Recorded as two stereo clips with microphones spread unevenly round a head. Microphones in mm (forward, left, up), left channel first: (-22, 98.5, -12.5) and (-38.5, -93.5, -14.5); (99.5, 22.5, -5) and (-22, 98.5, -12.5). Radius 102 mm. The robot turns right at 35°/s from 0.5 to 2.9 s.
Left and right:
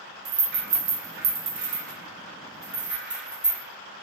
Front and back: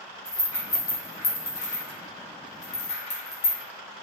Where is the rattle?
95° right, 0.8 m; by 3.6 s 10° right, 0.8 m.